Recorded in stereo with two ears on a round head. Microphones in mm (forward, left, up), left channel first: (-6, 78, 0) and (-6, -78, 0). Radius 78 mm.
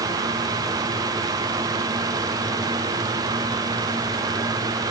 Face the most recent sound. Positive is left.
No sound to turn to.